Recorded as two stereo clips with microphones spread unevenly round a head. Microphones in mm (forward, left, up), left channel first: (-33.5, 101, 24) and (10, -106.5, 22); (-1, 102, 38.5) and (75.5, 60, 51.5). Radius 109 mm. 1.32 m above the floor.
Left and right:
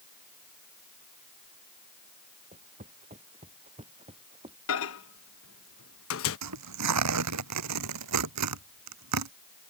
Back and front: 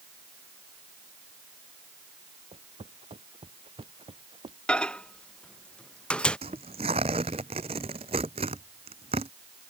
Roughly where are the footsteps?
Ahead.